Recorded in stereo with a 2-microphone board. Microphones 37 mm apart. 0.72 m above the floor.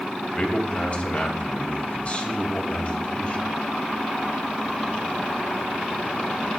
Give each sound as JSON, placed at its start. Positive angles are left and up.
{"t": 0.3, "sound": "a man speaking", "side_deg": 40, "distance_m": 3.5}